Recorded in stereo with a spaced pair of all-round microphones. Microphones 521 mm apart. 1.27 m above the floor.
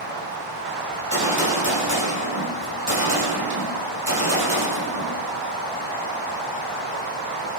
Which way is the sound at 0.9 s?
30° right (ahead or behind).